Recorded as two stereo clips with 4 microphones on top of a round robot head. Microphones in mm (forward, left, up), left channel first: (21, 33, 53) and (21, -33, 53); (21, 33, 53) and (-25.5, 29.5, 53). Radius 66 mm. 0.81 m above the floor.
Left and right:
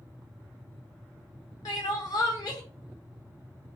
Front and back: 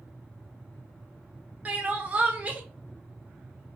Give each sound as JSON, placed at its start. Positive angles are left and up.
{"t": 1.6, "sound": "crying", "azimuth_deg": 125, "distance_m": 0.6}